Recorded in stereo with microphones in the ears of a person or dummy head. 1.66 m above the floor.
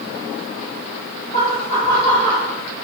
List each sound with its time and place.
1.3 s laughter: 40° left (ahead or behind), 4.5 m; by 2.5 s 25° left (ahead or behind), 5 m